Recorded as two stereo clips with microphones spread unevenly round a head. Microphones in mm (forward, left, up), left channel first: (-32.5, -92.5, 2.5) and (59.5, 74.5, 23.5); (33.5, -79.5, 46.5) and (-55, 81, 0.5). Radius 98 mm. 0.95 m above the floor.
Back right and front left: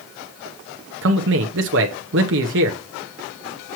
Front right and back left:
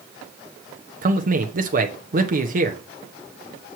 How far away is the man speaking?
About 0.9 m.